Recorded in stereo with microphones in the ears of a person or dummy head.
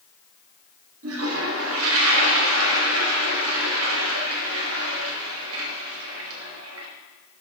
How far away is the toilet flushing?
About 1.5 m.